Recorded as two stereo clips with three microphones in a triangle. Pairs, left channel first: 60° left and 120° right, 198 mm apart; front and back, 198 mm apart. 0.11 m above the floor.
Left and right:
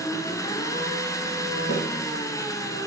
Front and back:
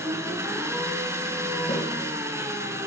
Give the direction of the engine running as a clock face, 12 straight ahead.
8 o'clock.